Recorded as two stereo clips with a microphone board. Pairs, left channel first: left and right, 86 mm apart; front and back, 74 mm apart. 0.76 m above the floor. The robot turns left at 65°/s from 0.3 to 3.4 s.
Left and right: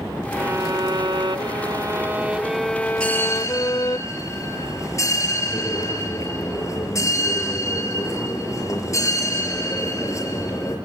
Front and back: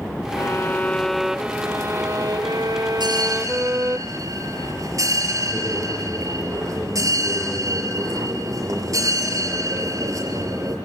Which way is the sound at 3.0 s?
170° left.